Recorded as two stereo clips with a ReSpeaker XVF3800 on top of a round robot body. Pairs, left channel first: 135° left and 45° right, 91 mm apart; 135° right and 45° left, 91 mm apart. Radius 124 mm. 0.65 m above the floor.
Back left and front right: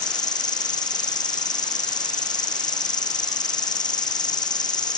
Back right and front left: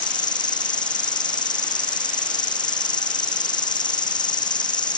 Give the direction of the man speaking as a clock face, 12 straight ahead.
I don't hear a man speaking.